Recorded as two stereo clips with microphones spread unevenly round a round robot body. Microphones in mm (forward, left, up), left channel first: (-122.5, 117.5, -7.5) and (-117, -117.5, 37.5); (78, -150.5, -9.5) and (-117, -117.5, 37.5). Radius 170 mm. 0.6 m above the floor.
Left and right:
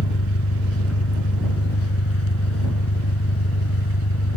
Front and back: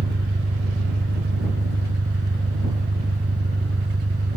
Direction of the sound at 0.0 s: 110° left.